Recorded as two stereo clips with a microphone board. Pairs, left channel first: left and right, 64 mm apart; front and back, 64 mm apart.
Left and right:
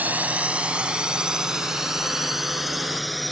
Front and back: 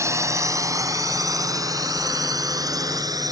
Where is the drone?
150° right; by 3.3 s straight behind.